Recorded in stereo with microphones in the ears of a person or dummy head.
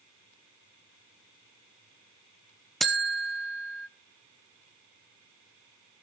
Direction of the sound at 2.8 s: Centre (ahead or behind).